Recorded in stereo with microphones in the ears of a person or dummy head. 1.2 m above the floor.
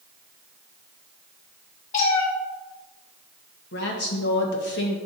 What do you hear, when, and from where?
1.9 s a cat meowing: 40° left (ahead or behind), 1.8 m
3.7 s a woman speaking: 55° left (ahead or behind), 1.3 m